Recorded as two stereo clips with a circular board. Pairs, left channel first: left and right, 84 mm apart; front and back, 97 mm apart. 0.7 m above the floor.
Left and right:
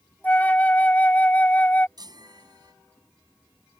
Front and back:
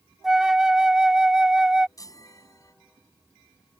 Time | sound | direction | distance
0.2 | a flute | 110° left | ?
2.0 | a chime | 50° right | ?